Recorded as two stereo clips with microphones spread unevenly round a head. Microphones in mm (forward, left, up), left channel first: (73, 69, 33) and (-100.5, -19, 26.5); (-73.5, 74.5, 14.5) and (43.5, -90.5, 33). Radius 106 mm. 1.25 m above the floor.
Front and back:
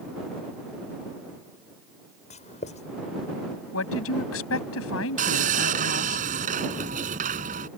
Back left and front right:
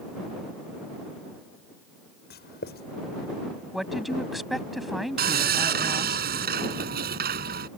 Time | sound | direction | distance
2.3 | writing | 80° left | ?
3.7 | a woman speaking | 35° left | ?
5.2 | sawing | 95° right | ?